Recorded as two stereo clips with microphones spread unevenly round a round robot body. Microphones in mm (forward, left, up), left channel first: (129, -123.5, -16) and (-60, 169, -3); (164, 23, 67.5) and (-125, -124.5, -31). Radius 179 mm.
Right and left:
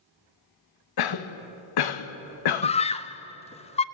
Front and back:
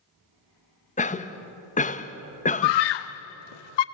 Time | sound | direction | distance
1.0 | a cough | 50° right | 1.1 m
2.6 | a scream | 15° left | 0.7 m